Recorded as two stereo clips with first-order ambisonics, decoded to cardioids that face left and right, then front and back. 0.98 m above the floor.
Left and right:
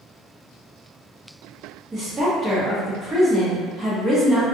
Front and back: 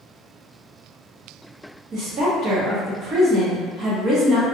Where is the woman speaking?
155° right, 0.8 m.